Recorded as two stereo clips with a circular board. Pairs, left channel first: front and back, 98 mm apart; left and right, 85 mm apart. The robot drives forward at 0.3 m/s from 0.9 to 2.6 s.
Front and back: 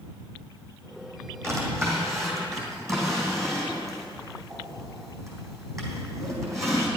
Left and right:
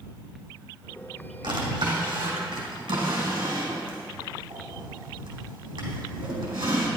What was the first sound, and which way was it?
A drawer, 120° right.